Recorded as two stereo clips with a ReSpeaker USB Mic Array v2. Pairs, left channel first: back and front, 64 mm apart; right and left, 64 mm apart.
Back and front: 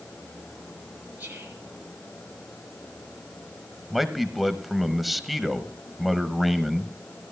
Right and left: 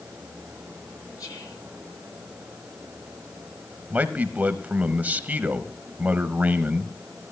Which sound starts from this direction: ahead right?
Whispering, at 1.2 s.